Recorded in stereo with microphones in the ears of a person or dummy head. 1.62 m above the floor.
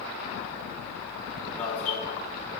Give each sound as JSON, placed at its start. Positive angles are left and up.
{"t": 1.6, "sound": "an alarm", "side_deg": 5, "distance_m": 6.5}